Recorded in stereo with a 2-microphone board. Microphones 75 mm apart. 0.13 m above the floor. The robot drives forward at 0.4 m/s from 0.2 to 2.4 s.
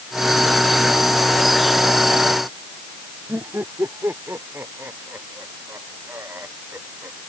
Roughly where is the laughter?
Right.